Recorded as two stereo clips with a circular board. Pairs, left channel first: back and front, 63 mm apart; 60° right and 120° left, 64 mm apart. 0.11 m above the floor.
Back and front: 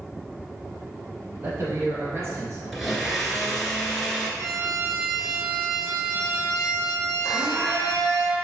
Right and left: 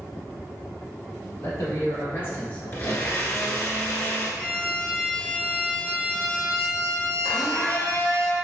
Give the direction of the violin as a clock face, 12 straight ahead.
12 o'clock.